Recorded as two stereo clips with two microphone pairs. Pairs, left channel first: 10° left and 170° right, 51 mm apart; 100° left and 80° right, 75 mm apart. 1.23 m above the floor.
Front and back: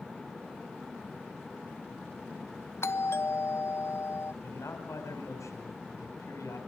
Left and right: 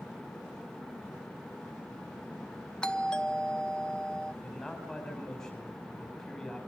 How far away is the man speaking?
About 5 m.